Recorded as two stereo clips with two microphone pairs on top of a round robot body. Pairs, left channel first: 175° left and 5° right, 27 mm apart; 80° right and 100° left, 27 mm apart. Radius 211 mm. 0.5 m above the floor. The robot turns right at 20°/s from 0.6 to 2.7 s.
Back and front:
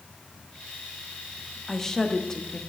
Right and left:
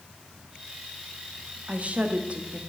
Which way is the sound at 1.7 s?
110° left.